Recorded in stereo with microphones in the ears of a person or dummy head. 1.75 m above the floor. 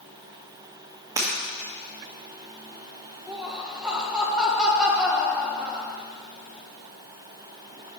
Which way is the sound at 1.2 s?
20° right (ahead or behind).